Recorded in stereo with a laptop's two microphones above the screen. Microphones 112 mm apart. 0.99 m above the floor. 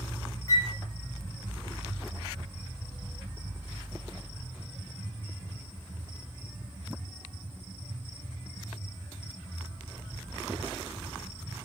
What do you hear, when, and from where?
0.5 s a flute: 35° left (ahead or behind), 1.7 m